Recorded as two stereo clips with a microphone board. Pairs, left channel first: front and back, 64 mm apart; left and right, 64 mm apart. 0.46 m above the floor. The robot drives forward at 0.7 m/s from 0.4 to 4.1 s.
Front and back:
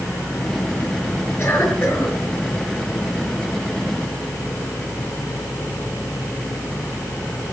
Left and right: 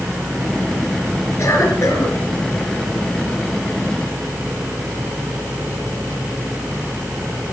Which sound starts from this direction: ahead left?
A cough, at 1.4 s.